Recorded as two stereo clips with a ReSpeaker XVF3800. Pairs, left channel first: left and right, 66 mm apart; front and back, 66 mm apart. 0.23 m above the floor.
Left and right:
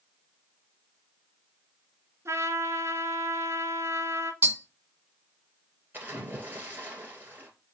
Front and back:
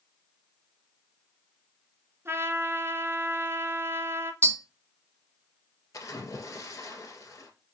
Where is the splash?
30° right, 2 m.